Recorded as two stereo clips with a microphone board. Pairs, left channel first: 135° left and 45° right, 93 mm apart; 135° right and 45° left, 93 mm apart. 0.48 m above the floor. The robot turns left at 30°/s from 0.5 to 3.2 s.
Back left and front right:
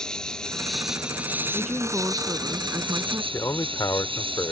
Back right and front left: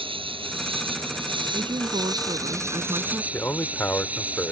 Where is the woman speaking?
45° left; by 3.2 s 5° right.